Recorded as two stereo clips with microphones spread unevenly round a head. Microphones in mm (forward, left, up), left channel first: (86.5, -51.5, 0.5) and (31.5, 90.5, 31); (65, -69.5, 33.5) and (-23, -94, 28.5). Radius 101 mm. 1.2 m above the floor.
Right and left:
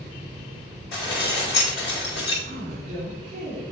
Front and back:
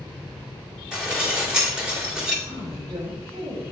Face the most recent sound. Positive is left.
turn(degrees=140)